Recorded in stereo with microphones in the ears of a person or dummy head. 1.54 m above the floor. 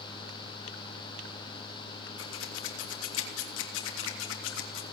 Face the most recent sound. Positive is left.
turn(degrees=75)  # may be behind; listen again after turning